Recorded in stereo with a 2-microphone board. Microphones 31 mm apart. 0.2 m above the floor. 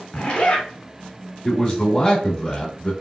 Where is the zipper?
20° left (ahead or behind), 1.1 m.